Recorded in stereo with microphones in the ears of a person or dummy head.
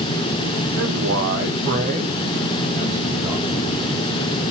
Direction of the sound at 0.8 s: 65° right (ahead or behind).